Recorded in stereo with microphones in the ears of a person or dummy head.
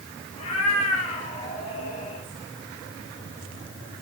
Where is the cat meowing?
30° left (ahead or behind), 4.5 m.